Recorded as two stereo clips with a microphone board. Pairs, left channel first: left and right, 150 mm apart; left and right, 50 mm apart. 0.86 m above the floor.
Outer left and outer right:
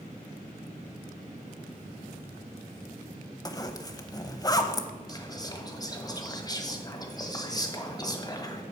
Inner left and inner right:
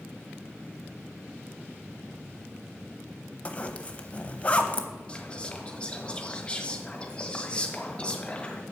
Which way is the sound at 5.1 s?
25° left (ahead or behind).